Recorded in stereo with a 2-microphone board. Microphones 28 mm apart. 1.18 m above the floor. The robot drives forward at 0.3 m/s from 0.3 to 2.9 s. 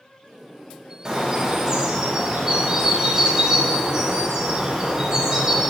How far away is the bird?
About 0.6 m.